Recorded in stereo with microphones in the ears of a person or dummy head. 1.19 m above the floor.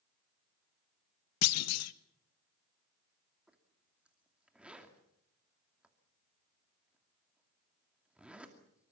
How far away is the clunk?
About 1.0 m.